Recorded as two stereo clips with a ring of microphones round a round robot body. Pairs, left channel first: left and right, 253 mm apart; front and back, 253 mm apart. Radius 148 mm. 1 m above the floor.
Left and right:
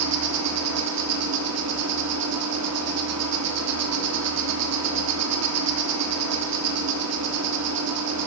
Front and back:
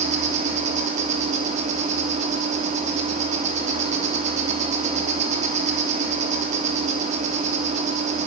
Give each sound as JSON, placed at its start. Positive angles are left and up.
{"t": 0.0, "sound": "an insect", "azimuth_deg": -115, "distance_m": 3.0}